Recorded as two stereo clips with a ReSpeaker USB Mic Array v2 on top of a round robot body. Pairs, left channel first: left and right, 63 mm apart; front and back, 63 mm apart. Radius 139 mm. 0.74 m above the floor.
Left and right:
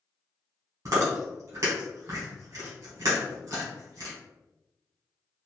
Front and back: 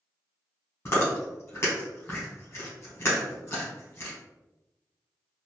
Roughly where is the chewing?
Ahead right.